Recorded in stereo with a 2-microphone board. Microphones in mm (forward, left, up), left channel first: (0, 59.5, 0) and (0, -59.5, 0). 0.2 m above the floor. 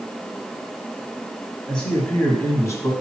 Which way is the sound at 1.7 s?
5° left (ahead or behind).